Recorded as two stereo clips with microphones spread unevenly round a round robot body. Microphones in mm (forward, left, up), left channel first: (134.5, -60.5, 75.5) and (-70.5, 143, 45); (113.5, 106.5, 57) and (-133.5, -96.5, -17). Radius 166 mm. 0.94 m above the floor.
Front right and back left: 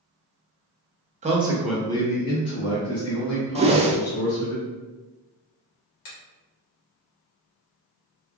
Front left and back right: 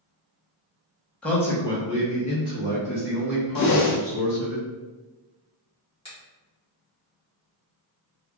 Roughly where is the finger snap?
Ahead right.